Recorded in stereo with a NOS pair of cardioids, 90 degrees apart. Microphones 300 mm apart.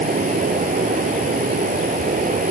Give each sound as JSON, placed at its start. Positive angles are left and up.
{"t": 0.0, "sound": "running water", "azimuth_deg": -25}